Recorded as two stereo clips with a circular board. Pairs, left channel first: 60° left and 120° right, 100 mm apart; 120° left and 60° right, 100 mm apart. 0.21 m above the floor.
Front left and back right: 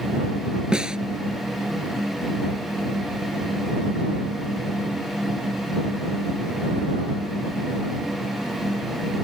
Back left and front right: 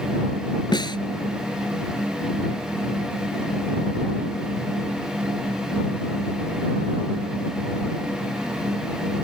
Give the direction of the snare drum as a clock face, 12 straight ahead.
7 o'clock.